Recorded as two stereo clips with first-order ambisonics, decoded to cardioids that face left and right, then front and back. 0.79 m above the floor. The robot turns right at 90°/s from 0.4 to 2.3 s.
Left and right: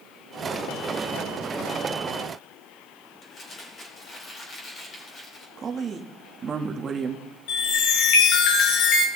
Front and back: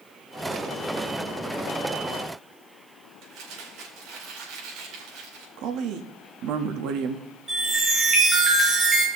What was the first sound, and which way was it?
Crumpling, 155° left.